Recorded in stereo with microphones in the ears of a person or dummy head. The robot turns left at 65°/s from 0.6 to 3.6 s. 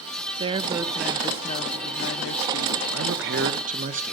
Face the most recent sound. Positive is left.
turn(degrees=-140)